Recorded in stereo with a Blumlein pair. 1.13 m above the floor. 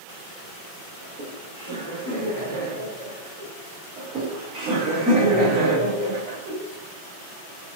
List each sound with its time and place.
1.0 s laughter: 45° right, 1.0 m; by 3.5 s 60° right, 3 m
4.0 s laughter: 30° right, 2.0 m